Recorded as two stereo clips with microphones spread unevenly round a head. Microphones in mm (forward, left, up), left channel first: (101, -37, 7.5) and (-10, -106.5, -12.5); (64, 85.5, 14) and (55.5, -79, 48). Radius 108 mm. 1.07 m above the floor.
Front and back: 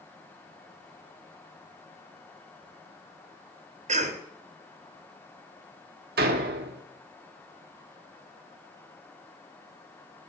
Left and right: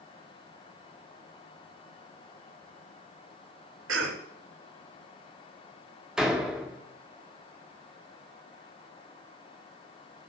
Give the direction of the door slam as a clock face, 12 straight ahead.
6 o'clock.